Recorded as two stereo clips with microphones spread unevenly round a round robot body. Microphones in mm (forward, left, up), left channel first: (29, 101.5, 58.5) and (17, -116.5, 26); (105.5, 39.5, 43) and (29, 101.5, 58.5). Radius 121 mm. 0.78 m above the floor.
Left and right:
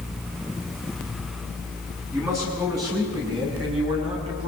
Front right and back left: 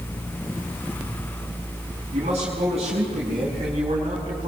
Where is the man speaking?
175° right, 7.5 m; by 4.5 s 160° right, 8 m.